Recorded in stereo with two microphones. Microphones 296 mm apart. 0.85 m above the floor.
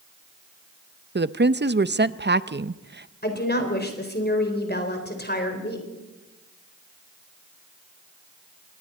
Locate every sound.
1.1 s a woman speaking: 35° right (ahead or behind), 0.6 m
3.2 s a woman speaking: 30° left (ahead or behind), 3.5 m